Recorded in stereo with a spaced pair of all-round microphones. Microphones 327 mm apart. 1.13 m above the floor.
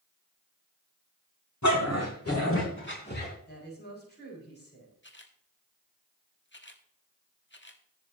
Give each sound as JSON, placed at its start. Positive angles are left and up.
{"t": 1.6, "sound": "a dog barking", "side_deg": 55, "distance_m": 3.5}
{"t": 3.5, "sound": "a woman speaking", "side_deg": 30, "distance_m": 6.0}
{"t": 5.0, "sound": "a camera shutter", "side_deg": 35, "distance_m": 1.5}